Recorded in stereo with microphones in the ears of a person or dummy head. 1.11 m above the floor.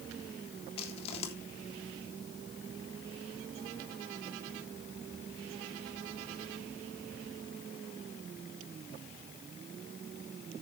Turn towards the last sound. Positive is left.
turn(degrees=35)  # may be behind; listen again after turning